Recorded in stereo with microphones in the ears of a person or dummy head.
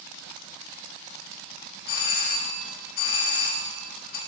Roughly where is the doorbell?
Left.